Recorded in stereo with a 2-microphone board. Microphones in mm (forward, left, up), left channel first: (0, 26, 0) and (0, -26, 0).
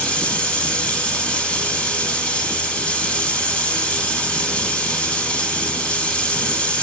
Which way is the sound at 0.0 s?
25° left (ahead or behind).